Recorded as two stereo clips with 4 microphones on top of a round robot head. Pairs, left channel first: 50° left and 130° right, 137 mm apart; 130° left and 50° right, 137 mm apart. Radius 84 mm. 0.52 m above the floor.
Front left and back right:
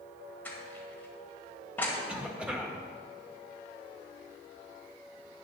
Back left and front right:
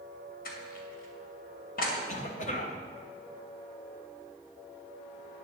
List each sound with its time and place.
0.5 s crushing: 125° left, 2 m
2.1 s a cough: 145° left, 1.7 m